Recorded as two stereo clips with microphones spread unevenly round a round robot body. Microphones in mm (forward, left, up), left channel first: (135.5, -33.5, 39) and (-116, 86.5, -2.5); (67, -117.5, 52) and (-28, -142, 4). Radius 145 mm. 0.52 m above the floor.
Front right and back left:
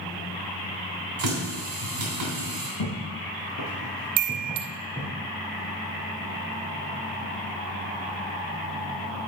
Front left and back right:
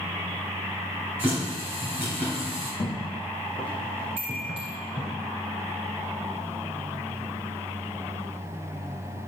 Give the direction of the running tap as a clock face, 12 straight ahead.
8 o'clock.